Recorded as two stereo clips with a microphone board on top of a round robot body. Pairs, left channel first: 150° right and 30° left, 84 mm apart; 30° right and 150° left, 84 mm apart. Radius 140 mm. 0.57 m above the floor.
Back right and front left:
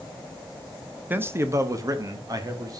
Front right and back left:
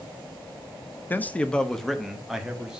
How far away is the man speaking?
About 0.9 m.